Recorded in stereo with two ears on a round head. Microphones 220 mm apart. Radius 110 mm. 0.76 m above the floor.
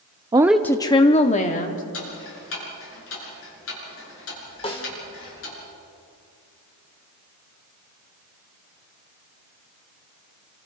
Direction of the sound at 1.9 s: 60° left (ahead or behind).